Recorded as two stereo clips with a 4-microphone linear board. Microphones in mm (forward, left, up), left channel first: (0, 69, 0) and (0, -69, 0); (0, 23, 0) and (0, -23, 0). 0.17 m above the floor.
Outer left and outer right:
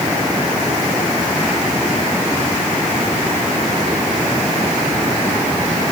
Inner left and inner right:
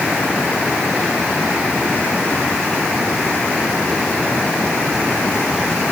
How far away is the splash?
No splash in this recording.